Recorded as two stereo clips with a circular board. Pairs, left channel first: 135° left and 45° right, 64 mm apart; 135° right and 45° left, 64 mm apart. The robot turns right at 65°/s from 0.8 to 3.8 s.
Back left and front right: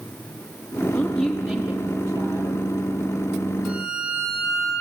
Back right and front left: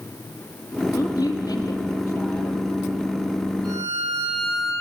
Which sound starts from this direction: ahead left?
A violin, at 3.6 s.